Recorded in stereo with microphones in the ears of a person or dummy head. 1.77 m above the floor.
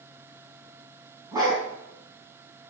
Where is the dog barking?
20° right (ahead or behind), 4 m.